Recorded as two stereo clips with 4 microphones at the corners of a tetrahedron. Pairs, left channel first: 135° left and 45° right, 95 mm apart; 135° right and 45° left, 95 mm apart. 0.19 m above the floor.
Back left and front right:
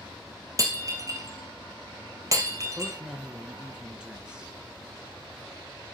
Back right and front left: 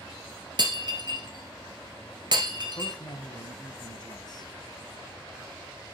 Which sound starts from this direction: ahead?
Breaking glass, at 0.6 s.